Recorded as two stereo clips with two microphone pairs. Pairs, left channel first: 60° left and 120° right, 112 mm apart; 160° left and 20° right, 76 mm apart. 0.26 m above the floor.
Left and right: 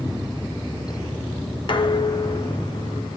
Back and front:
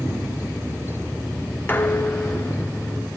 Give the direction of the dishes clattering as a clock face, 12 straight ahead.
9 o'clock.